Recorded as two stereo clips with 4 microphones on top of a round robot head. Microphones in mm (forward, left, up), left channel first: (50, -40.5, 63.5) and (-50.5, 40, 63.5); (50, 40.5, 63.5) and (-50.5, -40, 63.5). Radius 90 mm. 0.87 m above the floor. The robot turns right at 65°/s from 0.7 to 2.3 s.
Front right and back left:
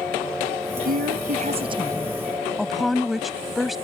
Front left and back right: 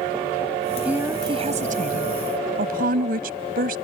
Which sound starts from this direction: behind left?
A woman speaking, at 0.8 s.